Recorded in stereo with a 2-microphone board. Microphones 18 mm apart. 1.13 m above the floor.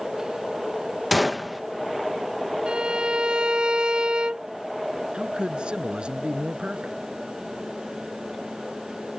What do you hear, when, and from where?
1.1 s a gunshot: 10° right (ahead or behind)
2.7 s a violin: 60° right (ahead or behind)
5.1 s a man speaking: 55° right (ahead or behind)